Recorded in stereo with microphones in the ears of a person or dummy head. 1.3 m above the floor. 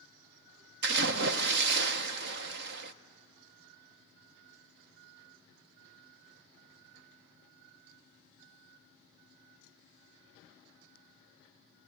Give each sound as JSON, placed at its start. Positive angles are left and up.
{"t": 0.8, "sound": "a splash", "side_deg": -70, "distance_m": 0.7}